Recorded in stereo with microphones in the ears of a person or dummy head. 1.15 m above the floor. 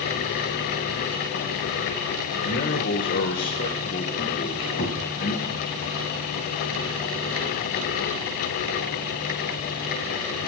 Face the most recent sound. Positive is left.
turn(degrees=65)  # may be behind; listen again after turning